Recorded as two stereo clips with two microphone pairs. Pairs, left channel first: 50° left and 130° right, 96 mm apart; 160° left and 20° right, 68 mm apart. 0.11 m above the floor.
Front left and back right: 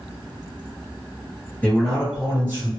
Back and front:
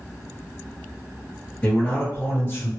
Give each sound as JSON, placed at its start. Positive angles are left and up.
{"t": 1.6, "sound": "a man speaking", "azimuth_deg": 105, "distance_m": 1.6}